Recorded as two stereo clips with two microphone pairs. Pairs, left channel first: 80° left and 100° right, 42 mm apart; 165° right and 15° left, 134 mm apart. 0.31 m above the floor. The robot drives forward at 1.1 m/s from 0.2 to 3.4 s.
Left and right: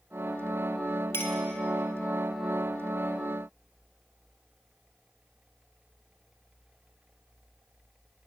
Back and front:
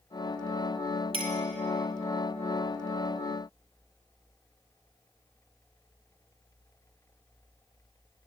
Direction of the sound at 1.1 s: 60° left.